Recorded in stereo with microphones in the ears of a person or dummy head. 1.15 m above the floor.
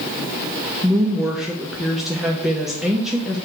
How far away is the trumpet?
No trumpet in this recording.